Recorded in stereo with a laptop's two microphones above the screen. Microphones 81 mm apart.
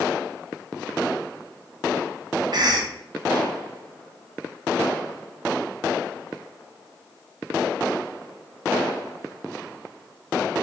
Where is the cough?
60° right (ahead or behind), 0.5 m.